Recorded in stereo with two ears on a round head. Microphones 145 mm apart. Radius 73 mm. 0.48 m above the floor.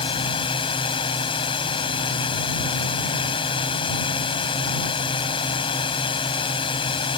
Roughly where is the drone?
Left.